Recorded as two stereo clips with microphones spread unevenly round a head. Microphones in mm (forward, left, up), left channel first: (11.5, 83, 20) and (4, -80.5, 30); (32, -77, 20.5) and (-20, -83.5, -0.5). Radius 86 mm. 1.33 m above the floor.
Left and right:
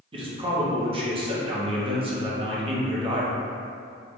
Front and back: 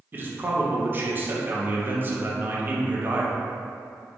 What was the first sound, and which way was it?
A man speaking, 150° right.